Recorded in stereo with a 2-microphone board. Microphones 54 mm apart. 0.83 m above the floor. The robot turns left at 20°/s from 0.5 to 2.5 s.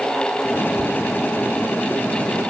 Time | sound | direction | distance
0.8 | laughter | 40° right (ahead or behind) | 3 m